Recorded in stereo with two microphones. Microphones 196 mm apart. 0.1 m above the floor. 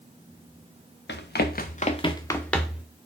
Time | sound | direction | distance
1.1 | running footsteps | 65° left (ahead or behind) | 0.8 m